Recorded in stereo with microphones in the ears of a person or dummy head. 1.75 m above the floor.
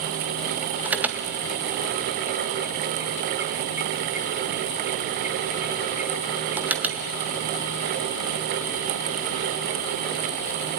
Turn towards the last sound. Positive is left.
turn(degrees=-10)  # may be behind; listen again after turning